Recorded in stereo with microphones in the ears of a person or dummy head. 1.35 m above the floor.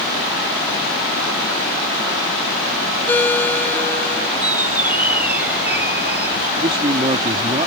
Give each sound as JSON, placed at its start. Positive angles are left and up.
{"t": 3.1, "sound": "a ringtone", "side_deg": 10}
{"t": 4.4, "sound": "a squeak", "side_deg": -5}
{"t": 6.6, "sound": "a man speaking", "side_deg": -30}